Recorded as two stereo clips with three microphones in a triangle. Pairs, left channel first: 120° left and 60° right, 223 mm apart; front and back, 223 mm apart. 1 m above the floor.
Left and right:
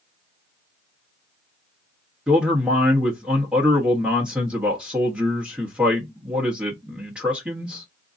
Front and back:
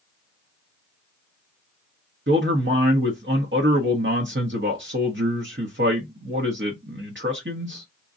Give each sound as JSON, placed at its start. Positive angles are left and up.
{"t": 2.3, "sound": "a man speaking", "azimuth_deg": -145, "distance_m": 1.0}